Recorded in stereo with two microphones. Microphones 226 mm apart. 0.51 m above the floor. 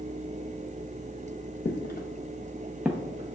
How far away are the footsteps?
About 0.9 m.